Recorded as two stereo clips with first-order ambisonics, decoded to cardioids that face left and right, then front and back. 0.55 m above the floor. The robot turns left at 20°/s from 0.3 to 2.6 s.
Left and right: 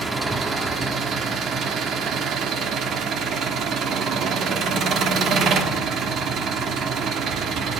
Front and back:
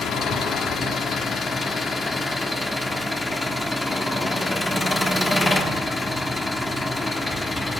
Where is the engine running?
25° right, 0.9 m; by 7.8 s 70° right, 0.9 m.